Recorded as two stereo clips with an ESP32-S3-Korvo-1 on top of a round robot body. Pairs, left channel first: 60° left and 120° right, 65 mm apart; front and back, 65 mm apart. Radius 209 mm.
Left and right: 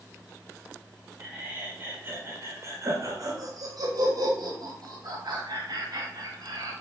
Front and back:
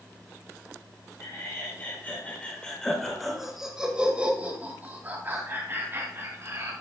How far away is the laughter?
About 2 m.